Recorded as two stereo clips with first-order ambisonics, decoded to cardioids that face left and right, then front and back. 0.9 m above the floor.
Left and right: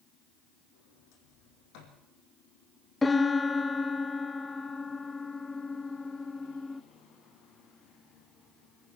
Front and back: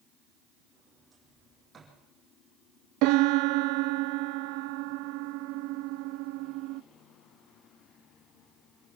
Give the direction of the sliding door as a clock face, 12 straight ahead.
9 o'clock.